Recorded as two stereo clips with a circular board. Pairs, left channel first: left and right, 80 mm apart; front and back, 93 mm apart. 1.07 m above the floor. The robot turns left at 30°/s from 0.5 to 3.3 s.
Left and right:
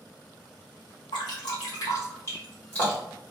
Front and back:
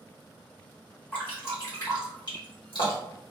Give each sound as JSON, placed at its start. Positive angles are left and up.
{"t": 1.1, "sound": "dripping", "azimuth_deg": 75, "distance_m": 1.7}